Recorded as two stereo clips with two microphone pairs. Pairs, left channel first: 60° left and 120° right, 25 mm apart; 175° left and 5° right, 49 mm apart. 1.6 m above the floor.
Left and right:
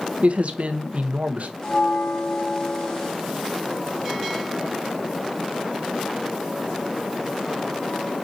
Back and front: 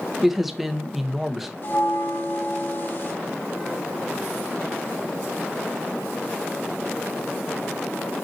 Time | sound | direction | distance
0.2 | a man speaking | 95° right | 1.3 m
1.6 | a bell | 125° left | 3.5 m